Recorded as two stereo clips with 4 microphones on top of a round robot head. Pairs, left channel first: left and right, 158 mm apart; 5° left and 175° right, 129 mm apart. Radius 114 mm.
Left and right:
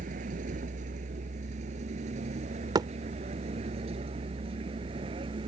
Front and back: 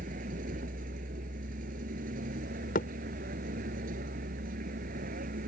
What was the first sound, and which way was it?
A vehicle, 140° right.